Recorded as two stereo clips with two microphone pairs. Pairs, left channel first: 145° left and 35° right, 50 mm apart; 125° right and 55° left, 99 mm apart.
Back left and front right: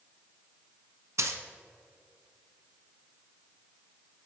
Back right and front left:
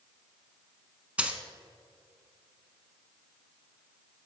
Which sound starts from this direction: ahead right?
A dropped coin, at 1.2 s.